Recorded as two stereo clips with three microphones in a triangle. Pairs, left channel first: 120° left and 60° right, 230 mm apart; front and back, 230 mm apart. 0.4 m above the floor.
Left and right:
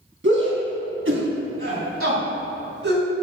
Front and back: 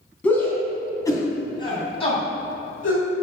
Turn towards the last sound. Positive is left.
turn(degrees=-50)